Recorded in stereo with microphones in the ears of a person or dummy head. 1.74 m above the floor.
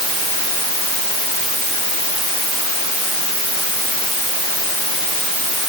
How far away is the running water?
I don't hear running water.